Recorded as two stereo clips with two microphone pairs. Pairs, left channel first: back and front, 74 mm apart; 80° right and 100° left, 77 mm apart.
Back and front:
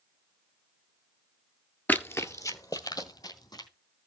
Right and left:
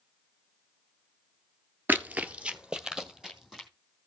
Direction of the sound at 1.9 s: 135° left.